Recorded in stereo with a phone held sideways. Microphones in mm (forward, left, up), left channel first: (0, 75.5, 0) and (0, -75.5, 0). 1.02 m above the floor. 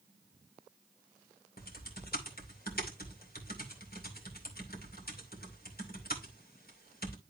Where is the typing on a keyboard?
85° left, 2.5 m.